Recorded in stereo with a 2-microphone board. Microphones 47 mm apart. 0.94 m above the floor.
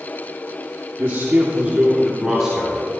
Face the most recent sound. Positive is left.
turn(degrees=-5)  # may be behind; listen again after turning